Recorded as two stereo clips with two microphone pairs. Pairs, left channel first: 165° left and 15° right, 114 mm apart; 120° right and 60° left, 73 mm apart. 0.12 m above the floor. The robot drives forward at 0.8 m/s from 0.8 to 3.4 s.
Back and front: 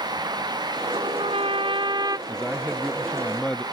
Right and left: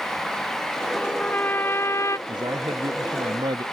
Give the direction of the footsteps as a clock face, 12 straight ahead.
I don't hear footsteps.